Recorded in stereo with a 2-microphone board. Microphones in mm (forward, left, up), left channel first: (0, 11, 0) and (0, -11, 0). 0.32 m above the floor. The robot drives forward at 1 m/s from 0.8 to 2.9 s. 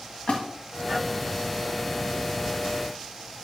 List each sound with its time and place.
0.3 s a splash: 60° left (ahead or behind), 1.9 m